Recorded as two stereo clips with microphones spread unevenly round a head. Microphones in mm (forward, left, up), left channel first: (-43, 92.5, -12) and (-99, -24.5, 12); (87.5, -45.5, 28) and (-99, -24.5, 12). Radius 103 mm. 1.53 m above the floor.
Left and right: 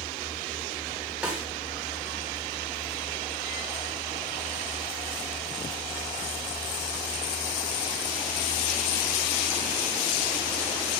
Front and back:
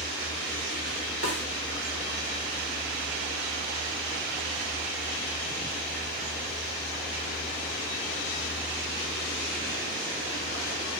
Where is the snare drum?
165° left, 2.5 m.